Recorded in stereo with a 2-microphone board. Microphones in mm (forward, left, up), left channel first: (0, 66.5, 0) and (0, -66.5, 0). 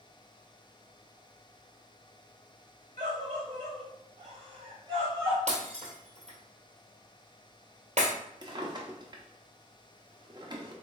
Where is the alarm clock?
No alarm clock in this recording.